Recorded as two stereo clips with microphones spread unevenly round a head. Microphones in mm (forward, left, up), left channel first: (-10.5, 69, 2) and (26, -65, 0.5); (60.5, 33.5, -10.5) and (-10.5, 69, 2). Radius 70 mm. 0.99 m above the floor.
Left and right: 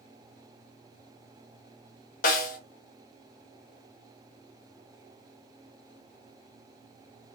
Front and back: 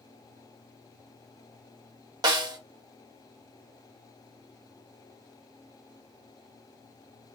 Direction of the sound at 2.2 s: 125° left.